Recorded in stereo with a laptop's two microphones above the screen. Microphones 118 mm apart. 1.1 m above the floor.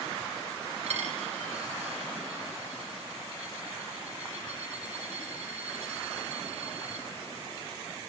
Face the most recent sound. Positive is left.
turn(degrees=-75)  # may be behind; listen again after turning